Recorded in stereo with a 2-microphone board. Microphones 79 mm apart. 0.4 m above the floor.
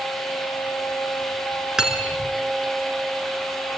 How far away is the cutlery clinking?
About 3.5 m.